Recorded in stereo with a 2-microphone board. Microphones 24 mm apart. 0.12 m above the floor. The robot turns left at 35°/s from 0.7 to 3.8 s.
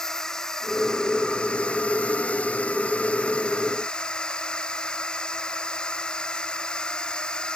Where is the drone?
155° left; by 7.6 s 45° left.